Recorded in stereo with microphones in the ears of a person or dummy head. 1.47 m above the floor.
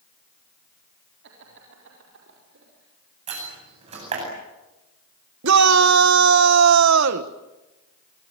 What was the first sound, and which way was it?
Laughter, 70° right (ahead or behind).